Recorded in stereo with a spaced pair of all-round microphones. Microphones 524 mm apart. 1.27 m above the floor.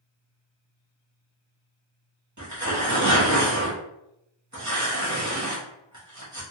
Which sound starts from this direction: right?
Tearing paper, at 2.4 s.